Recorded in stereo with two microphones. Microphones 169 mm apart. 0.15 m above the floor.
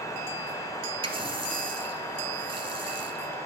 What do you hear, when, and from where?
1.0 s a running tap: 30° right (ahead or behind), 2.0 m